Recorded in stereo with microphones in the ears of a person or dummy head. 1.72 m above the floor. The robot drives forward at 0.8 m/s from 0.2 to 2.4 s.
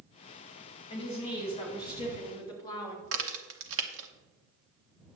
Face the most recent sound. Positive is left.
turn(degrees=-70)  # may be behind; listen again after turning